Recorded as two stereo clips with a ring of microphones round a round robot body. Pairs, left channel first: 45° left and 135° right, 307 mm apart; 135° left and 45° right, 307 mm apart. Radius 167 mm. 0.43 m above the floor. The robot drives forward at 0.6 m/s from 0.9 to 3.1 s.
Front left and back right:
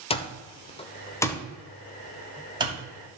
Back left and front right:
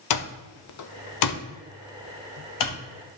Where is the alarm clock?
115° left, 1.1 m; by 2.8 s 150° left, 1.9 m.